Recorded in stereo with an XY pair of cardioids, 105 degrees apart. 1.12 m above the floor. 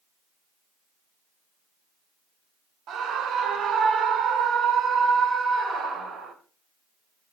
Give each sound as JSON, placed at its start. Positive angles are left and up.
{"t": 2.9, "sound": "a scream", "azimuth_deg": -65, "distance_m": 2.0}